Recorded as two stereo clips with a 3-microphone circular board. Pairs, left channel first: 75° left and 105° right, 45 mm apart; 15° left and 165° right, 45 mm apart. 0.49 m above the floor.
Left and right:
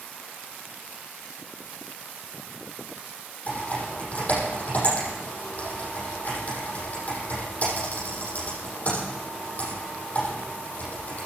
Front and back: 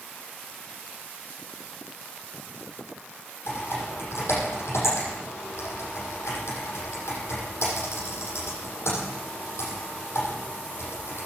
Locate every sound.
3.5 s typing on a keyboard: 20° left, 8.5 m